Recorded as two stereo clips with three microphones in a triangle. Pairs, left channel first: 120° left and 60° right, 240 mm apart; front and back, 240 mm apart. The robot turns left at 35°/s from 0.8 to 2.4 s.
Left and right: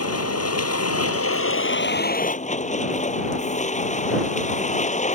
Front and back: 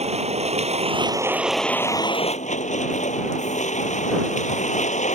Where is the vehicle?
115° left; by 5.2 s 60° left.